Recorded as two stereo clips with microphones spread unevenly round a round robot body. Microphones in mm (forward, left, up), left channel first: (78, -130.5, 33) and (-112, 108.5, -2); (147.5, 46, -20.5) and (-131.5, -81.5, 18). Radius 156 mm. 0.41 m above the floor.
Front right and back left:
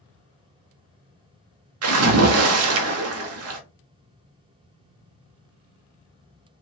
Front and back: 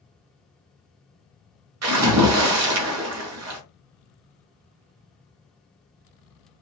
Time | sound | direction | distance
1.8 | a splash | 160° left | 0.6 m